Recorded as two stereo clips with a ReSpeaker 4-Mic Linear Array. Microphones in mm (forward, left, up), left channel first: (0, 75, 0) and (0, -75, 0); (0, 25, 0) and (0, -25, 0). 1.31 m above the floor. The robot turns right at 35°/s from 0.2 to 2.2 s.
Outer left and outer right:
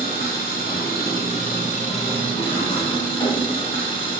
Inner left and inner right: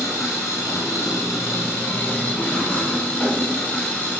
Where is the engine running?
75° left, 0.7 m; by 4.2 s 145° left, 0.7 m.